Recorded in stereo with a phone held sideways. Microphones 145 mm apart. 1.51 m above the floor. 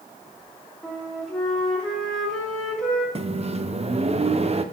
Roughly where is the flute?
Centre.